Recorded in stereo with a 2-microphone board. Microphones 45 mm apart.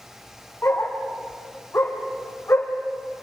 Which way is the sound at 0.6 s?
70° left (ahead or behind).